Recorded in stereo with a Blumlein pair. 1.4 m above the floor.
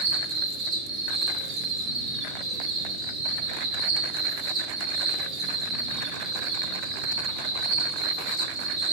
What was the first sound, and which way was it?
An insect, 25° right.